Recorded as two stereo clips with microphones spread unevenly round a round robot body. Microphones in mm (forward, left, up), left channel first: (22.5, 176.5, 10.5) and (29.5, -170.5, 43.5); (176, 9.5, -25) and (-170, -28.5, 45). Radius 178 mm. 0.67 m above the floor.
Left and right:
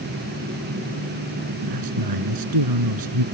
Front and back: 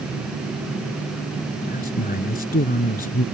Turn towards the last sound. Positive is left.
turn(degrees=-60)